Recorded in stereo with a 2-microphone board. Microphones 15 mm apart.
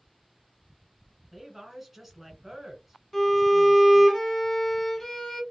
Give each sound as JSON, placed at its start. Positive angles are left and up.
{"t": 1.3, "sound": "a woman speaking", "side_deg": -15, "distance_m": 1.4}
{"t": 3.1, "sound": "a violin", "side_deg": 20, "distance_m": 0.9}